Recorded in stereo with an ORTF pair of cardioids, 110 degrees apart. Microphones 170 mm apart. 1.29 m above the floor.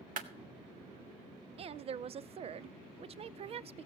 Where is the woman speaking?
40° right, 0.7 m.